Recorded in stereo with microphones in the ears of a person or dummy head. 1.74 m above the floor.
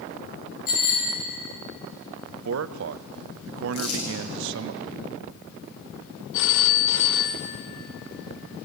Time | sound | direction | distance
0.7 | a bicycle bell | 50° left (ahead or behind) | 9.5 m
2.3 | a man speaking | 70° right (ahead or behind) | 0.6 m
3.7 | crumpling | 85° left | 8 m
6.3 | a phone ringing | 65° left (ahead or behind) | 1.4 m